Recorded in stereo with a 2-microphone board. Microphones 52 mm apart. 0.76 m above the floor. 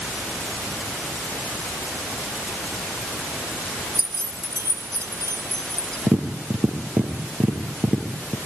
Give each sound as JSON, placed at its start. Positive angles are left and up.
{"t": 4.0, "sound": "keys jangling", "side_deg": -60, "distance_m": 1.8}
{"t": 6.1, "sound": "tapping", "side_deg": -35, "distance_m": 5.5}